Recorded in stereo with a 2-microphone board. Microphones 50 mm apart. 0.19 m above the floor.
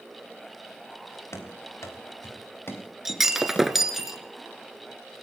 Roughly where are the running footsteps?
Left.